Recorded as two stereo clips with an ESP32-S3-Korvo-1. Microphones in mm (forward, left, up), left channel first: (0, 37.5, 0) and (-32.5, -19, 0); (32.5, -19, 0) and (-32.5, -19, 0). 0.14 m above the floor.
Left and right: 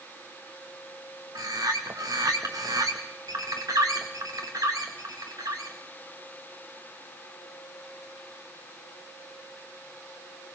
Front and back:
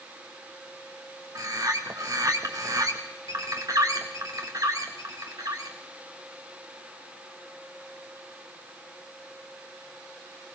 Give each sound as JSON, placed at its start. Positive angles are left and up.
{"t": 1.4, "sound": "a bird", "azimuth_deg": -150, "distance_m": 2.5}